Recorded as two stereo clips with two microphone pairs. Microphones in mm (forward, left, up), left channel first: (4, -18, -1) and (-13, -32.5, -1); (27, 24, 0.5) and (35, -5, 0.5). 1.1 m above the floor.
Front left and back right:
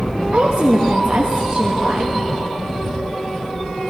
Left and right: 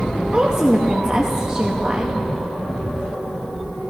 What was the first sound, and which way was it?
A woman speaking, 140° right.